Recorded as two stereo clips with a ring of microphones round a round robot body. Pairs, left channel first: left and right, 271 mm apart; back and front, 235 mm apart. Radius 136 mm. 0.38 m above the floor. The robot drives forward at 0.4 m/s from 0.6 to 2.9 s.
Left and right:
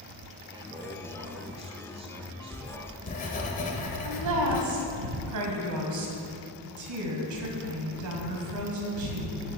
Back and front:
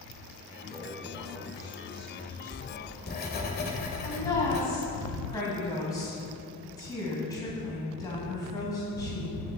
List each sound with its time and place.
0.5 s a man speaking: 65° right, 1.0 m; by 3.5 s 155° right, 1.3 m
2.5 s writing: 140° left, 1.4 m; by 4.6 s 145° left, 1.5 m
4.0 s a woman speaking: 105° right, 2 m